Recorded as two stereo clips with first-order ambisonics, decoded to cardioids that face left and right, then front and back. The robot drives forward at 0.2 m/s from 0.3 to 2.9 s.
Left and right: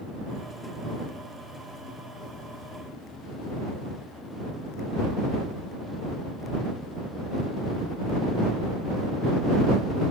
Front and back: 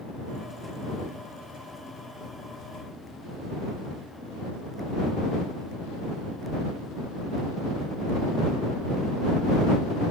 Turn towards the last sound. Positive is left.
No sound to turn to.